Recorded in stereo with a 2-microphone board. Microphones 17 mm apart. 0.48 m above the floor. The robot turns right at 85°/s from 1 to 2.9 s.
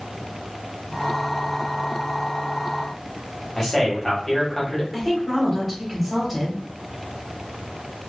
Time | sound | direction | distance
3.6 | a man speaking | 10° left (ahead or behind) | 1.4 m
4.9 | a woman speaking | centre (ahead or behind) | 1.4 m